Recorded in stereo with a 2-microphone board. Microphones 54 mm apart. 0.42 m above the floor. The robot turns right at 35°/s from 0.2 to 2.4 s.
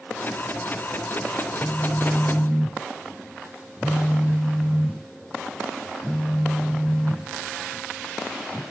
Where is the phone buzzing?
20° right (ahead or behind), 0.7 m; by 8.6 s 5° left (ahead or behind), 0.7 m.